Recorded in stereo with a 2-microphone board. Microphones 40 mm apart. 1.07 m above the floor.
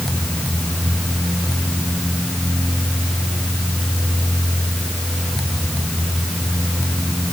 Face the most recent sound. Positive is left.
No sound to turn to.